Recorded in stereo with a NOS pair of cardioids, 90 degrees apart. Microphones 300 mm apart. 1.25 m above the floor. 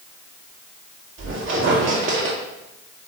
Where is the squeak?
45° right, 2.0 m.